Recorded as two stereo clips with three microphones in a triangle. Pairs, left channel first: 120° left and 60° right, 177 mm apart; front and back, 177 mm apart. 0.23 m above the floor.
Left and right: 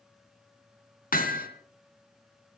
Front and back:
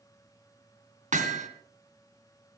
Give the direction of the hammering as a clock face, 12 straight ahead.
7 o'clock.